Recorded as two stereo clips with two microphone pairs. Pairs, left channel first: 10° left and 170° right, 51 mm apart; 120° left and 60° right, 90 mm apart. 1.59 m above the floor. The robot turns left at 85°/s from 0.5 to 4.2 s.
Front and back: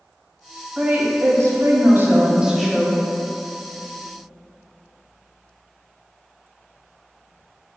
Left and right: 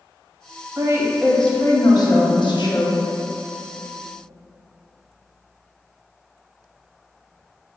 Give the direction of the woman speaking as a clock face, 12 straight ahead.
4 o'clock.